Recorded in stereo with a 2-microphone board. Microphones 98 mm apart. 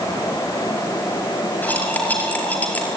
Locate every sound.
1.6 s cutlery clinking: 15° left (ahead or behind), 5.5 m